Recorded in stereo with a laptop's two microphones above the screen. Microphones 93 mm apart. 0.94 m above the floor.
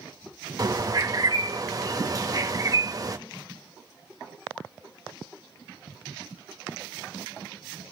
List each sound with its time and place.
0.6 s a bird: 40° right (ahead or behind), 1.2 m